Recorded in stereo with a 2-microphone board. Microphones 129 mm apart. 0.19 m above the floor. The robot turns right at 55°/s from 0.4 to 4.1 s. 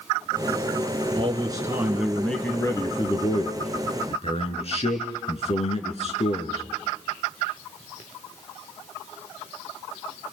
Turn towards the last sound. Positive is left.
turn(degrees=105)